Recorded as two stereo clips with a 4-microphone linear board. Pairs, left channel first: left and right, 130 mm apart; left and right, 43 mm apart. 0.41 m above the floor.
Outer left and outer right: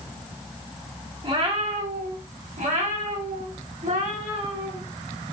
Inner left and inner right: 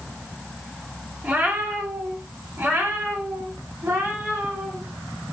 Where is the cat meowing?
35° right (ahead or behind), 0.8 m; by 4.8 s 80° right, 2.5 m.